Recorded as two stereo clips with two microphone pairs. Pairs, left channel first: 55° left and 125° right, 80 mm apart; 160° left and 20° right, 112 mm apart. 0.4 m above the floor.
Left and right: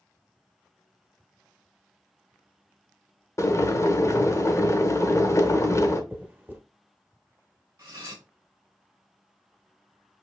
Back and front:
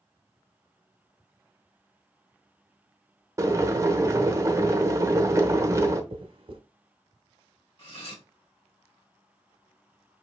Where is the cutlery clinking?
170° right, 2 m.